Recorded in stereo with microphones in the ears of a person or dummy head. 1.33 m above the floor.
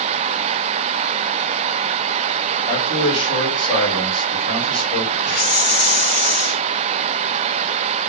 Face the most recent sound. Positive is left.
turn(degrees=55)  # may be behind; listen again after turning